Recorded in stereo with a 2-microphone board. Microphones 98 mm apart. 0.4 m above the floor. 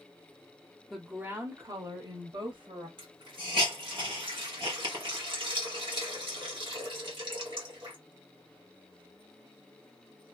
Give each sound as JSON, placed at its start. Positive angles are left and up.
{"t": 0.9, "sound": "a woman speaking", "side_deg": 0, "distance_m": 0.8}
{"t": 3.0, "sound": "a hiss", "side_deg": -55, "distance_m": 1.7}